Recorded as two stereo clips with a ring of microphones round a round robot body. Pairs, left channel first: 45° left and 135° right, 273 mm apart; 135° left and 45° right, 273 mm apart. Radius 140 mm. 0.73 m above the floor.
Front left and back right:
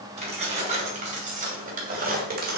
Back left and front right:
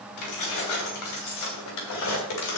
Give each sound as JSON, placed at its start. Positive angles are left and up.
{"t": 0.2, "sound": "keys jangling", "azimuth_deg": 160, "distance_m": 3.5}